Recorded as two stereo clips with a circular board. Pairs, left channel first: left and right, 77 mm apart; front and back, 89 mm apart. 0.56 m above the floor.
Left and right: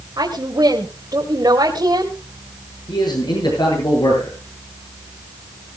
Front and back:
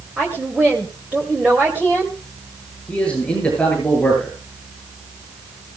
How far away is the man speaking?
About 8.5 m.